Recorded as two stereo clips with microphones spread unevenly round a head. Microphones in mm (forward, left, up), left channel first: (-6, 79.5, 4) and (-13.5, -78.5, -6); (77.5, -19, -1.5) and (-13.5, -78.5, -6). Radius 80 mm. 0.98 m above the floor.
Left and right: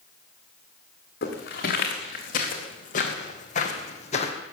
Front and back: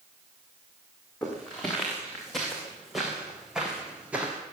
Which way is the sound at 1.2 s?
120° left.